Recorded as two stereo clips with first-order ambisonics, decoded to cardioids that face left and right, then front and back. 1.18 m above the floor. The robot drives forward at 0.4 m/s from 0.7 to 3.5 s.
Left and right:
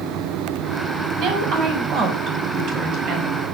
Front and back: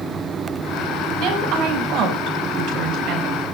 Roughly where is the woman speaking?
Behind right.